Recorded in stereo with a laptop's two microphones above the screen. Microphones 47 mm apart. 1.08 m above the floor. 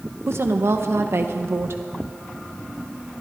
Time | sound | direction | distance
0.3 | a woman speaking | 60° right (ahead or behind) | 0.8 m